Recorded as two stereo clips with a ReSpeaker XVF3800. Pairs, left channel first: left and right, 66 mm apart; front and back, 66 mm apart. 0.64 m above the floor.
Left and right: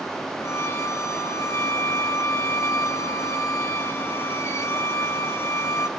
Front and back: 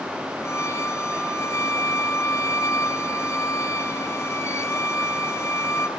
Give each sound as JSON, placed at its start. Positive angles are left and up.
{"t": 0.4, "sound": "a violin", "azimuth_deg": 45, "distance_m": 1.6}